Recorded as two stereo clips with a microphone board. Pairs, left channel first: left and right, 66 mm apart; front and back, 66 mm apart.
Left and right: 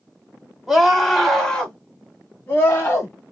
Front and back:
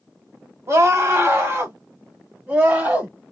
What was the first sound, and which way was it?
A scream, 175° right.